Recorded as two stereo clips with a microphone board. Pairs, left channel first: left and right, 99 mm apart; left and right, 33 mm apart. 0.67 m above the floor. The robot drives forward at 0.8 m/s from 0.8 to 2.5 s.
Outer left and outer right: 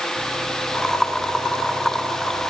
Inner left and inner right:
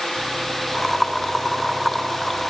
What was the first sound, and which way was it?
Only background noise.